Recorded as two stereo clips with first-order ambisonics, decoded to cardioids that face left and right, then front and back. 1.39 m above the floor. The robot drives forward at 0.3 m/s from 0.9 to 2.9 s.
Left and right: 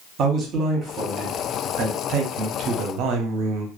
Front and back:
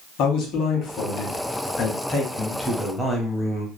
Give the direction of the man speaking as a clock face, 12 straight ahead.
1 o'clock.